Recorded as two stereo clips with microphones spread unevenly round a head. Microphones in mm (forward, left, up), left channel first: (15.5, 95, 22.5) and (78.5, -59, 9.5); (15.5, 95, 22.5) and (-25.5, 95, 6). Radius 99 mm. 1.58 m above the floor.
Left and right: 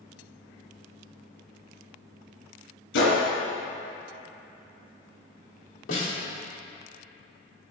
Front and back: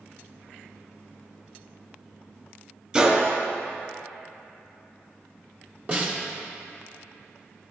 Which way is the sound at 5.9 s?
135° left.